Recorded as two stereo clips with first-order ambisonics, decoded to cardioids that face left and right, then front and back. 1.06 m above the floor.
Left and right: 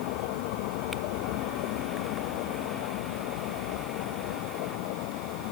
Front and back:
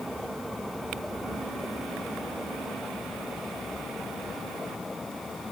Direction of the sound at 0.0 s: 90° left.